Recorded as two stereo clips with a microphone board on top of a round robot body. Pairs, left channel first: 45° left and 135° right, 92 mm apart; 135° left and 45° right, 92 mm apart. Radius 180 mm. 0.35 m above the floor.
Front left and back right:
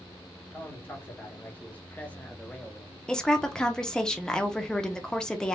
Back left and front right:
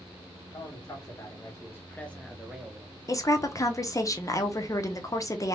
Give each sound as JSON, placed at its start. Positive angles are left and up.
{"t": 0.5, "sound": "a man speaking", "azimuth_deg": 110, "distance_m": 2.0}
{"t": 3.1, "sound": "a woman speaking", "azimuth_deg": 120, "distance_m": 1.0}